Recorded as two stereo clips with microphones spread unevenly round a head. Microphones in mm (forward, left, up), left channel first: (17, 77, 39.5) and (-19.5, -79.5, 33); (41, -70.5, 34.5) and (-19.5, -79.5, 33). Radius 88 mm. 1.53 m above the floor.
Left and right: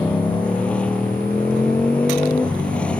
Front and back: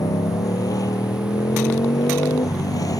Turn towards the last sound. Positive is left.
turn(degrees=-5)